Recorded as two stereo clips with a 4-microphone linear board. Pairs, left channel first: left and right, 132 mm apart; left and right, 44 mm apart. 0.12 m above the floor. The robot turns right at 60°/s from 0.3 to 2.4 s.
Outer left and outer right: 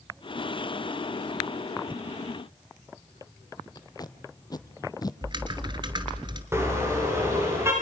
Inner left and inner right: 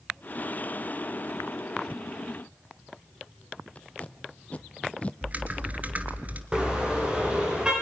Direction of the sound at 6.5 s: 20° right (ahead or behind).